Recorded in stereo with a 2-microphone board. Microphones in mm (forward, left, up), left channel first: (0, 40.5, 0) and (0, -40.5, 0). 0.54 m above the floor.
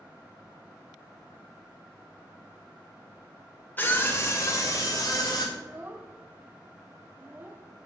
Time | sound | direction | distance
3.8 | a scream | 25° left (ahead or behind) | 1.8 m
5.5 | a child speaking | 25° right (ahead or behind) | 0.6 m